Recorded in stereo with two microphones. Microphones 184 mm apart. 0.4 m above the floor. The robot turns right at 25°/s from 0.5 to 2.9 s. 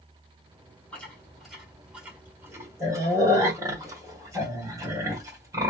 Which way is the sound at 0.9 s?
5° left (ahead or behind).